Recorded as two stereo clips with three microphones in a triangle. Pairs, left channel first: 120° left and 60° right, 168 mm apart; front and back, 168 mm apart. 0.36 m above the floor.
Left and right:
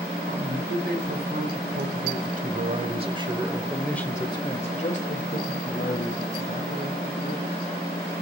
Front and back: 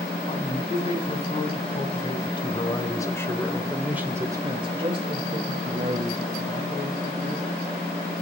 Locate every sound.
0.3 s a man speaking: 50° right, 2.5 m; by 7.5 s 130° left, 3 m